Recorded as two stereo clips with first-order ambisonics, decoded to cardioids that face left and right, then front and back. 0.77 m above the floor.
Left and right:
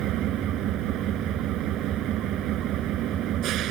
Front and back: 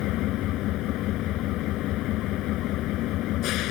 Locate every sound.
0.0 s an engine running: 40° right